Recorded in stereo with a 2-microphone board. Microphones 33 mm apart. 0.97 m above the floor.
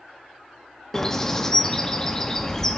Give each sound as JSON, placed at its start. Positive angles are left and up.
{"t": 0.9, "sound": "a bird", "side_deg": 15, "distance_m": 0.6}